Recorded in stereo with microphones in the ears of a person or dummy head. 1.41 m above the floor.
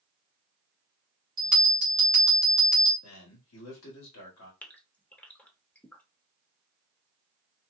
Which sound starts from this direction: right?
A bell, at 1.4 s.